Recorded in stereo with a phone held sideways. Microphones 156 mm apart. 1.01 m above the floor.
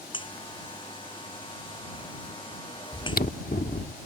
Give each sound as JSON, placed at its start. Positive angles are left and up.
{"t": 0.1, "sound": "a buzzer", "side_deg": 30}
{"t": 2.9, "sound": "chewing", "side_deg": 70}